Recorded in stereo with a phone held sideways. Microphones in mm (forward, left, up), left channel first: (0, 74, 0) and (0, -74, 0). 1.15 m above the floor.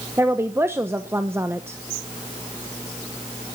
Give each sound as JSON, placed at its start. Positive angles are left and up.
{"t": 0.2, "sound": "a woman speaking", "side_deg": -15, "distance_m": 0.9}